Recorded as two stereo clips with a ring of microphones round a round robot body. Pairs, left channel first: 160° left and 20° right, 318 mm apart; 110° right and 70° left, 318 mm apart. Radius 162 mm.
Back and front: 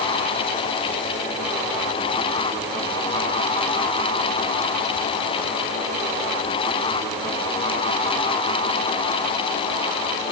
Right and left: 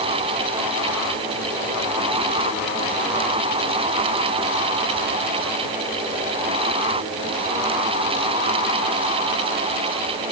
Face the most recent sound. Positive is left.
No sound to turn to.